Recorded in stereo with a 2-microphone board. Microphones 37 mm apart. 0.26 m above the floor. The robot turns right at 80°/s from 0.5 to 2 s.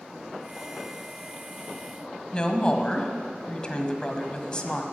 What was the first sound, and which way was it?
A woman speaking, 25° left (ahead or behind).